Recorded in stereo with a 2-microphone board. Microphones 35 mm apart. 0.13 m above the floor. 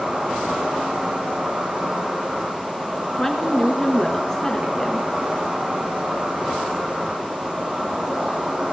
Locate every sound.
0.0 s an insect: 40° right (ahead or behind), 4.5 m
3.2 s a woman speaking: 15° left (ahead or behind), 2 m